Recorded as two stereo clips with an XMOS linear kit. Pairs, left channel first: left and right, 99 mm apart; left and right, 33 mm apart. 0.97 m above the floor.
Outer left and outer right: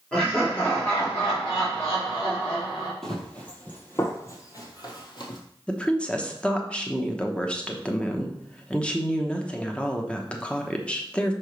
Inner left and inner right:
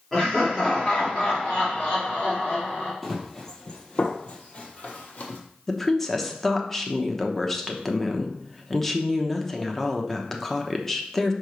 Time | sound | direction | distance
0.1 | laughter | 10° left (ahead or behind) | 2.5 m
3.0 | running footsteps | 5° left (ahead or behind) | 1.5 m
5.7 | a woman speaking | 10° left (ahead or behind) | 0.9 m